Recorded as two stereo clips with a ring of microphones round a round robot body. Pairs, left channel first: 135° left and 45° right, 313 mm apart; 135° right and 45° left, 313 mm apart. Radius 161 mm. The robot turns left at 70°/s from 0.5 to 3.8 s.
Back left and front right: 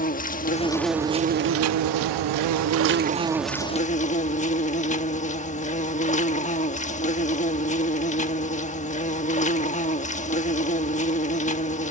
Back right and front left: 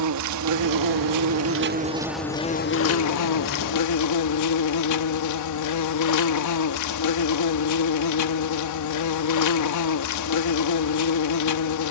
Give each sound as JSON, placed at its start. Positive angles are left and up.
{"t": 0.0, "sound": "an insect", "azimuth_deg": 70}